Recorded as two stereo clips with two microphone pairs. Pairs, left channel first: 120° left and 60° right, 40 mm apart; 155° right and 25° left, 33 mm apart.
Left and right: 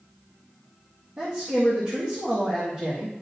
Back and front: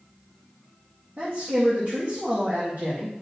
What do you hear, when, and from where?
1.2 s a man speaking: 5° right, 1.8 m